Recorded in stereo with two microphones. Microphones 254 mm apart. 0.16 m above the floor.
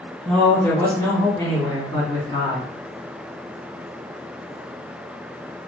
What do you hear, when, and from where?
0.2 s a man speaking: centre (ahead or behind), 1.4 m; by 2.7 s 20° left (ahead or behind), 1.5 m